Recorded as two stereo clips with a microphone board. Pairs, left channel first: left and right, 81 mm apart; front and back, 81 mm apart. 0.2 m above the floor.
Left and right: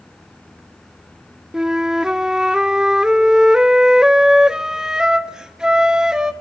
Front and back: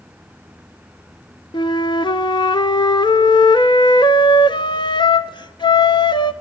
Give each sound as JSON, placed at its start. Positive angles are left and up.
{"t": 1.5, "sound": "a flute", "azimuth_deg": -10, "distance_m": 0.7}